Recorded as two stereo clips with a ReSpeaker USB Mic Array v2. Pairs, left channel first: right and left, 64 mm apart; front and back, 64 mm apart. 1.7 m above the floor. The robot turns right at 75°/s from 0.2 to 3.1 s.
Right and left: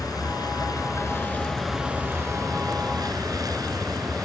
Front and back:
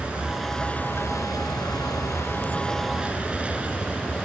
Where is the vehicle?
110° right; by 4.2 s 110° left.